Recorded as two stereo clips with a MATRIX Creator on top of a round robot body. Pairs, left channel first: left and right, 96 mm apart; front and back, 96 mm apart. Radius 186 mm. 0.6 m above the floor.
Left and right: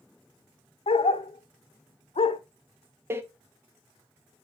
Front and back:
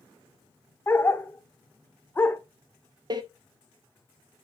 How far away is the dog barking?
About 0.6 m.